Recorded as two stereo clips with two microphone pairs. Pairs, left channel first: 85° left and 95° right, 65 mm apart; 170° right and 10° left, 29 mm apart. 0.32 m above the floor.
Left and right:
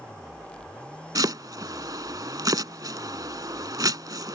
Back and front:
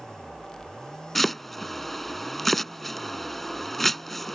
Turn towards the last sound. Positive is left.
turn(degrees=-90)